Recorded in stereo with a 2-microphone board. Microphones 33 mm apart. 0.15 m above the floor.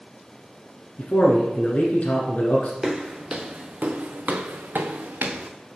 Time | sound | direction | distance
1.0 | a man speaking | 50° left (ahead or behind) | 1.5 m
2.8 | footsteps | 15° right (ahead or behind) | 1.2 m